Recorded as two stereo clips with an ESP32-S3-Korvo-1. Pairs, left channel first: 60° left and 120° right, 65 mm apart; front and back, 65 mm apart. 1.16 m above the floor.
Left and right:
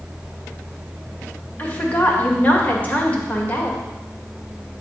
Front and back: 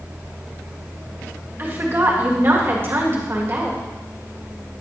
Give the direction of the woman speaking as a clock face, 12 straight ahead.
8 o'clock.